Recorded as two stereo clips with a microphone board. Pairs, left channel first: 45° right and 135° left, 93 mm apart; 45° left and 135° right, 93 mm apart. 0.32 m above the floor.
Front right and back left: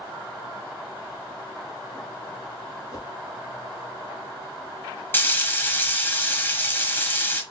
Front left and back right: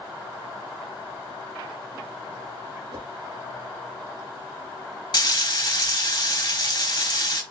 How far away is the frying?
About 1.1 m.